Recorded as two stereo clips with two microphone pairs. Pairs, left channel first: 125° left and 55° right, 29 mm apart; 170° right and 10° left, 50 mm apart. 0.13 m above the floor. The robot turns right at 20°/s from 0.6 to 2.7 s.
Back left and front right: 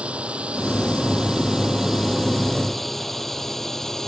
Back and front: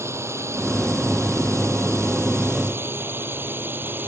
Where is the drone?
5° right; by 4.1 s 55° left.